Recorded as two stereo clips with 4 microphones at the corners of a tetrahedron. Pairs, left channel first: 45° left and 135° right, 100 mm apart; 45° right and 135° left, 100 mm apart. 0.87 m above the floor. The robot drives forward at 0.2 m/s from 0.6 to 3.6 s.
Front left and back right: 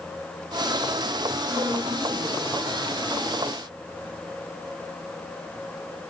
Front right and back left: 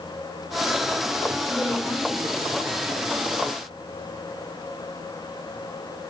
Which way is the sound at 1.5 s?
160° right.